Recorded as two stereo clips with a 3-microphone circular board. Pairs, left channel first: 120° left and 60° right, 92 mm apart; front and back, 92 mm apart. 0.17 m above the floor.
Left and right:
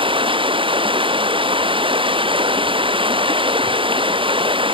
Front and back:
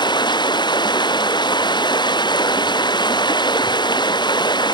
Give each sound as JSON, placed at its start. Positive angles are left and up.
{"t": 0.0, "sound": "running water", "azimuth_deg": -35}